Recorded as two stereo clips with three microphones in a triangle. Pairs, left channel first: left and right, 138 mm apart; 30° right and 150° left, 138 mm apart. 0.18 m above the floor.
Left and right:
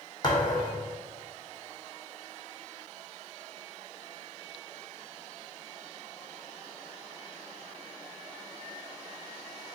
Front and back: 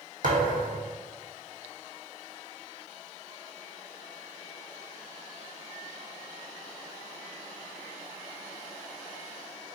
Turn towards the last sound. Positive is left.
turn(degrees=150)